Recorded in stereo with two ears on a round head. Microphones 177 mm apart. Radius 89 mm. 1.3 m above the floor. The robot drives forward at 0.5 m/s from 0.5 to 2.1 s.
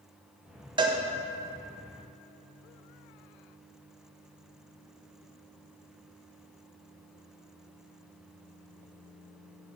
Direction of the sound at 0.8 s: 25° right (ahead or behind).